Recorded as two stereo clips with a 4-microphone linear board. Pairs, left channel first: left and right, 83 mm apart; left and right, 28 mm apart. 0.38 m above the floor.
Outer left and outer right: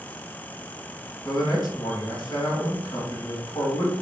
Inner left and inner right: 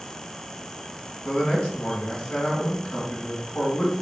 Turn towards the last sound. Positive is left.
turn(degrees=60)  # may be behind; listen again after turning